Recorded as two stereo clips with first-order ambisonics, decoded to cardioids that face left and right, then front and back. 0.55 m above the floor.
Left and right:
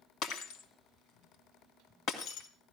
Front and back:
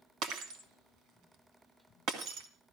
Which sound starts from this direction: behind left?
Breaking glass, at 0.2 s.